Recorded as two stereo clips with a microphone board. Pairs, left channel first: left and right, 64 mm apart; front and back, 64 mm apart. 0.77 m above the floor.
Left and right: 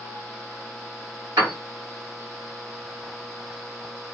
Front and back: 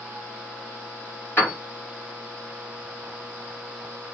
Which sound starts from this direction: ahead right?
A piano, at 1.4 s.